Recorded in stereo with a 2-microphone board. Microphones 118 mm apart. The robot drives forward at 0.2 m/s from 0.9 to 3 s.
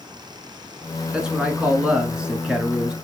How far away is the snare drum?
No snare drum in this recording.